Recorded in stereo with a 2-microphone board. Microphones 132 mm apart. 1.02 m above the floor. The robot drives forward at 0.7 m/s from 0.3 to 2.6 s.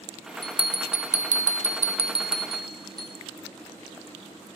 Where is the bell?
40° right (ahead or behind), 0.9 m; by 3.1 s 35° right (ahead or behind), 1.0 m.